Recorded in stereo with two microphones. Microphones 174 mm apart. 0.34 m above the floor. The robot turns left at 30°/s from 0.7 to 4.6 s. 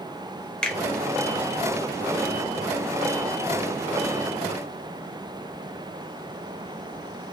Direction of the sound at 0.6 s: 5° left (ahead or behind).